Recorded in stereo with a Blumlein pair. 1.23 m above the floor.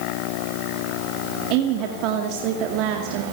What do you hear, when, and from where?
1.5 s a woman speaking: 40° right, 2.5 m